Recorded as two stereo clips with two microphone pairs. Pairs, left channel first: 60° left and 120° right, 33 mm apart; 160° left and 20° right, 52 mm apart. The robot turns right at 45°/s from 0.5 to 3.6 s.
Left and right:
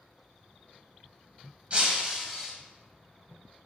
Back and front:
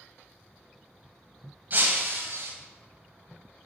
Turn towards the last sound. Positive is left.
turn(degrees=15)